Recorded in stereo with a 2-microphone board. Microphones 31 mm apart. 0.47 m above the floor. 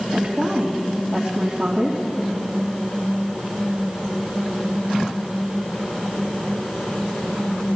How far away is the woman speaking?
About 2.5 m.